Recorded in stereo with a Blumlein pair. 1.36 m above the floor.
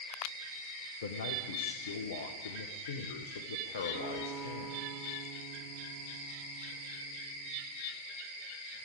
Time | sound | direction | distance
1.0 | a man speaking | 60° left | 1.3 m
3.9 | a guitar | 10° left | 9 m